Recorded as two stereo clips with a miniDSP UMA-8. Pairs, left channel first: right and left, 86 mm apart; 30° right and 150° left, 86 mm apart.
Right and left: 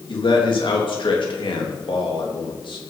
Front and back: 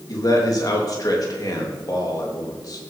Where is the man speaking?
75° right, 3 m.